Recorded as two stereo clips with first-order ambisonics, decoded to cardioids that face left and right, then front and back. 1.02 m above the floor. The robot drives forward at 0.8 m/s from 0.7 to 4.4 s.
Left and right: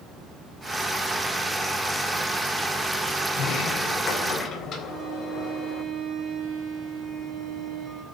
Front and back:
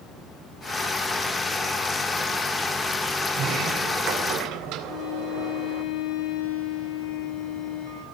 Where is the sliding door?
140° left, 2.5 m; by 5.8 s 145° left, 3.5 m.